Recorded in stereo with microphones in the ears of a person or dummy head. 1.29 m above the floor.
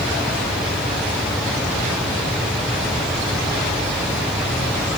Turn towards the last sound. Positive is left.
No sound to turn to.